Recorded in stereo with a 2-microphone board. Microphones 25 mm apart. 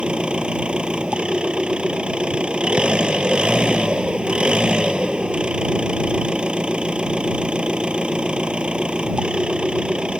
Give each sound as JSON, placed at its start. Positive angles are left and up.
{"t": 0.0, "sound": "an engine running", "side_deg": -45}